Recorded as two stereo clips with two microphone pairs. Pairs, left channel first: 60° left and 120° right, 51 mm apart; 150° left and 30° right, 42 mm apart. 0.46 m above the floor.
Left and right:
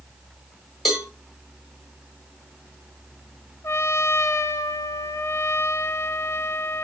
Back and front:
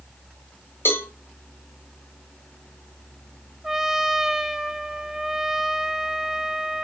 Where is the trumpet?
55° left, 0.8 m.